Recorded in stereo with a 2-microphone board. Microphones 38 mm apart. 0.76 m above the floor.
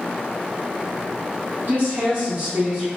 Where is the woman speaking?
60° right (ahead or behind), 1.8 m; by 2.9 s 20° right (ahead or behind), 1.8 m.